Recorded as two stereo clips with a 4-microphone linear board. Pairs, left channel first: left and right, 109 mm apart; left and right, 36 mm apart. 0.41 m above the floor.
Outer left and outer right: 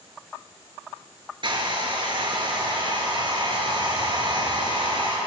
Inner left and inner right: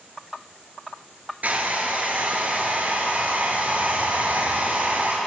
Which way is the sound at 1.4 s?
50° right (ahead or behind).